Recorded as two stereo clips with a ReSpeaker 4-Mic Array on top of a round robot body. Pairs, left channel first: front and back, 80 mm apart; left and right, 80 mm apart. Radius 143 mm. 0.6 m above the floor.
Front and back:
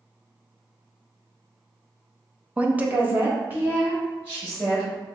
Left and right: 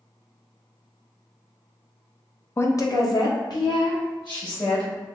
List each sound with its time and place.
2.6 s a woman speaking: 120° left, 0.8 m; by 4.9 s 115° left, 4 m